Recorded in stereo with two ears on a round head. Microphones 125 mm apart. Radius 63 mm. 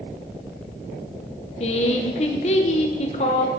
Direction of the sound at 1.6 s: 50° left (ahead or behind).